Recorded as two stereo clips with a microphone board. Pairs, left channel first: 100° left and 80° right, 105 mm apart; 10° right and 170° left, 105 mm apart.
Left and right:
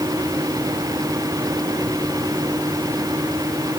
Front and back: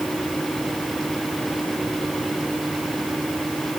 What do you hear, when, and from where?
Only background noise.